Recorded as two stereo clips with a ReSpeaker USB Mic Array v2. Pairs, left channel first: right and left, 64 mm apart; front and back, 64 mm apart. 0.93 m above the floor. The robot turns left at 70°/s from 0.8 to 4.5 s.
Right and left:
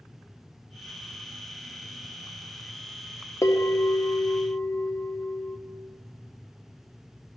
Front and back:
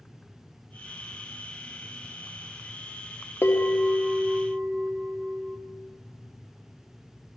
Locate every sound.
3.4 s a bell: 50° right, 0.8 m; by 5.6 s 130° right, 0.8 m